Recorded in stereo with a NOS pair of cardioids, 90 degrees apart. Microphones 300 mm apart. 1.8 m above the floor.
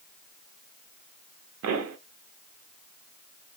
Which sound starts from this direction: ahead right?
A pop, at 1.6 s.